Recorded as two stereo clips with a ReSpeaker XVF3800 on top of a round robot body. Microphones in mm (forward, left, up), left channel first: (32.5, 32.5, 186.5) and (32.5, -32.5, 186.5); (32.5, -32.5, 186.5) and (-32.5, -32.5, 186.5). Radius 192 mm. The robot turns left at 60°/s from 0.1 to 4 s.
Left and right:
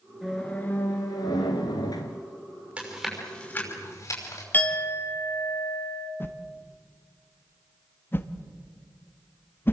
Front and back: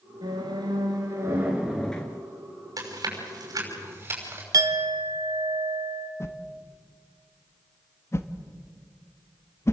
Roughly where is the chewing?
Behind.